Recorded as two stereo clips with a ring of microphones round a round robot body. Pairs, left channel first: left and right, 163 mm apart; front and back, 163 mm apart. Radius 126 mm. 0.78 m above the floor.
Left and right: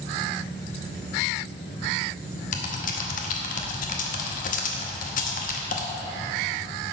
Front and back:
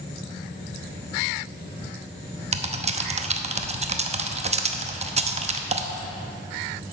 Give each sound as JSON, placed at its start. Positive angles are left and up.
{"t": 2.5, "sound": "typing on a keyboard", "azimuth_deg": 130, "distance_m": 0.8}